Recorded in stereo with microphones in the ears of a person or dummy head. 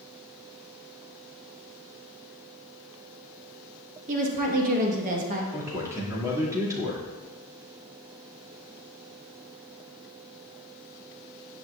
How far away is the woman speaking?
About 1.6 m.